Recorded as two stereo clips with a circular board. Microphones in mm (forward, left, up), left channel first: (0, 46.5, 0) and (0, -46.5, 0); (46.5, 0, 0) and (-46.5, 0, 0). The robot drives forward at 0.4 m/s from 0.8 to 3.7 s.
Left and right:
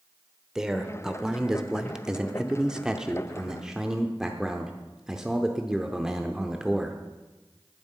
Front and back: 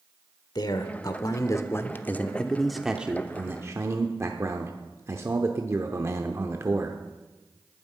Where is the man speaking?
5° right, 1.0 m; by 7.0 s 165° right, 0.8 m.